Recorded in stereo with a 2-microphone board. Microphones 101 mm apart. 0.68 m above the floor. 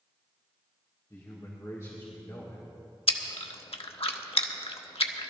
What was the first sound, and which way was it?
A man speaking, 30° left (ahead or behind).